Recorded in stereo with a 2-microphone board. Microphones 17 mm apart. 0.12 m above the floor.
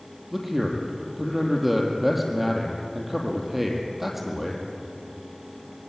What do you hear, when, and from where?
0.3 s a man speaking: 15° right (ahead or behind), 4.5 m